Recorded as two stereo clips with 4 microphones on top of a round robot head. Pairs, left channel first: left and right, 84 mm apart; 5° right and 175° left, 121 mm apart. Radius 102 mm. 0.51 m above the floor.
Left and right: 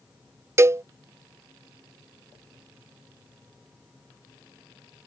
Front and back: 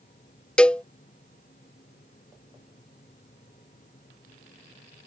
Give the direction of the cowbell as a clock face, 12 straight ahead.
3 o'clock.